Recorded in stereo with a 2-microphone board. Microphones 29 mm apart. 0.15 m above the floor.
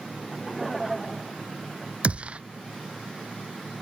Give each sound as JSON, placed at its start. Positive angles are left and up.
{"t": 0.2, "sound": "laughter", "side_deg": 0}
{"t": 2.0, "sound": "a gunshot", "side_deg": -40}